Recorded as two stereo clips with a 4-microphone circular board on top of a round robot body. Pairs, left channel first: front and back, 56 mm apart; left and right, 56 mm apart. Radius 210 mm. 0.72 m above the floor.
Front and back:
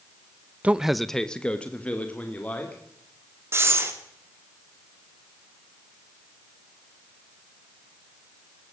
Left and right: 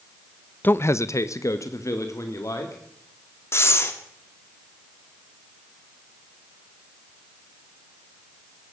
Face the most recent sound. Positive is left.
turn(degrees=135)